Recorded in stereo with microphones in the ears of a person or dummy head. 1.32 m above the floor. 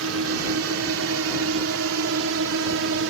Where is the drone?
70° right (ahead or behind); by 3.1 s 65° right (ahead or behind).